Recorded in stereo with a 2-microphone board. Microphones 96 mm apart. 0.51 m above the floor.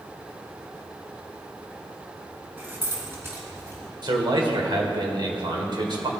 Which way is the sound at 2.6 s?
20° right (ahead or behind).